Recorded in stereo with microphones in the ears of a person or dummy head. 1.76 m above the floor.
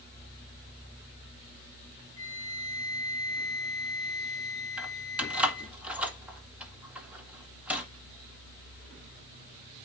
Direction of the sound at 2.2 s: 25° right (ahead or behind).